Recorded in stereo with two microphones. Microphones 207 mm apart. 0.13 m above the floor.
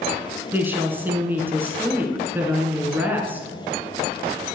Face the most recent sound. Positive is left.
turn(degrees=-10)  # may be behind; listen again after turning